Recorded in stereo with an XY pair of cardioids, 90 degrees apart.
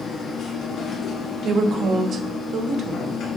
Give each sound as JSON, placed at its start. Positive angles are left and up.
{"t": 0.0, "sound": "a machine running", "azimuth_deg": 60, "distance_m": 1.2}
{"t": 1.4, "sound": "a woman speaking", "azimuth_deg": -65, "distance_m": 0.7}